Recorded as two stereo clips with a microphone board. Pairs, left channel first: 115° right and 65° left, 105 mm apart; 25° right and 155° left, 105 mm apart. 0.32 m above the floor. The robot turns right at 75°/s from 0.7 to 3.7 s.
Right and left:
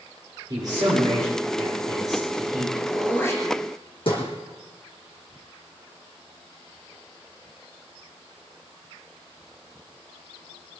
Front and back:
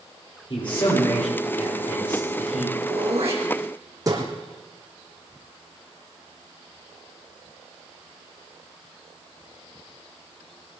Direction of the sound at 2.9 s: 155° left.